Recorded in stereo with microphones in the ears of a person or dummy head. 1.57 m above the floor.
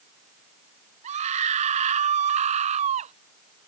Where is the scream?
35° right (ahead or behind).